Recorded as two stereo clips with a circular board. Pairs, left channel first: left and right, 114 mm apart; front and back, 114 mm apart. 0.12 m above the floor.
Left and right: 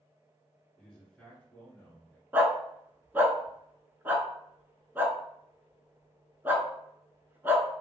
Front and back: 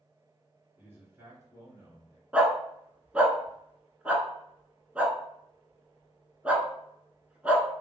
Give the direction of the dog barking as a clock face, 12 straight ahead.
4 o'clock.